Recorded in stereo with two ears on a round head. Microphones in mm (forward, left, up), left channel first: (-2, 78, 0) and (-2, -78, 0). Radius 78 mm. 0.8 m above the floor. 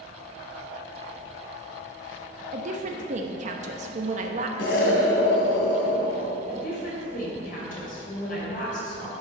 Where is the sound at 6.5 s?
50° left (ahead or behind), 3.5 m.